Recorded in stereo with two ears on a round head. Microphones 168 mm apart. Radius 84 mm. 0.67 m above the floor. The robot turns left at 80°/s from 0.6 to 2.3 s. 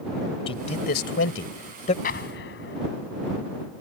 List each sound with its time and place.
0.5 s a man speaking: 35° left (ahead or behind); by 1.9 s 40° left (ahead or behind)
2.0 s an explosion: 50° left (ahead or behind); by 2.8 s 70° left (ahead or behind)